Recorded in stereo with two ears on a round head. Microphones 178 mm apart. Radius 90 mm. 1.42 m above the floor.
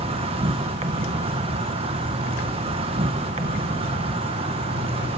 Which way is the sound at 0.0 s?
30° right (ahead or behind).